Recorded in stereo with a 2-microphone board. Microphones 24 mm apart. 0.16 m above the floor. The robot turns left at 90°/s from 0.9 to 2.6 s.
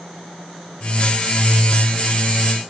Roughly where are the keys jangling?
No keys jangling in this recording.